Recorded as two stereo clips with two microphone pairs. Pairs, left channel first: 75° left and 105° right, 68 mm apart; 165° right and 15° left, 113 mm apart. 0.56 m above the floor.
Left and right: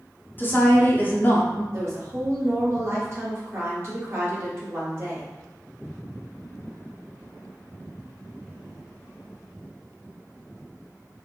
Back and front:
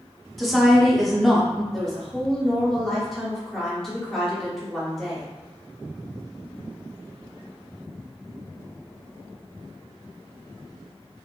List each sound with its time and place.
0.4 s a woman speaking: 105° left, 0.7 m
1.7 s a woman speaking: 80° right, 1.1 m